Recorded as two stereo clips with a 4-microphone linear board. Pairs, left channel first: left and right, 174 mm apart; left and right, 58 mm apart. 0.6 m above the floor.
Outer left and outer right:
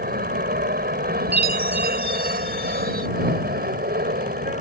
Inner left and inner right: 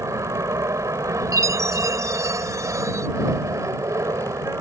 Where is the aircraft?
60° right (ahead or behind).